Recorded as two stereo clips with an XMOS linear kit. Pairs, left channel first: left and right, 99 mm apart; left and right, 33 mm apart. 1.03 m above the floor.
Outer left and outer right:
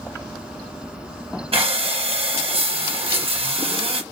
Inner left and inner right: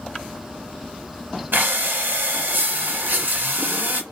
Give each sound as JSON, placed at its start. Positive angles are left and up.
{"t": 1.5, "sound": "breathing", "side_deg": -65, "distance_m": 0.7}